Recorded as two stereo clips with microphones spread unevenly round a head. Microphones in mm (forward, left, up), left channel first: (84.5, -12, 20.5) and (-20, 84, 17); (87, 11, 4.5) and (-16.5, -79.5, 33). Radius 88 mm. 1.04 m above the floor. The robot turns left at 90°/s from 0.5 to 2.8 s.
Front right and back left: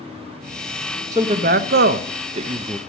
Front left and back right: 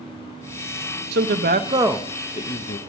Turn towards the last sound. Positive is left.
turn(degrees=55)